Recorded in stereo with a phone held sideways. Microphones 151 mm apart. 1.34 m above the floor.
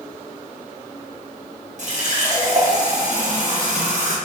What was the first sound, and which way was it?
A running tap, 55° right (ahead or behind).